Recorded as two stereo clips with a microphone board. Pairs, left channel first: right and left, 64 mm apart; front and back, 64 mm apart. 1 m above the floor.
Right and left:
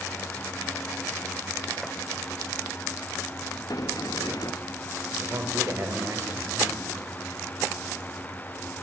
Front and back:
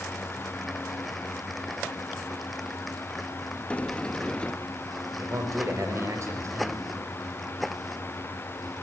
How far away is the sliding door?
About 1.0 m.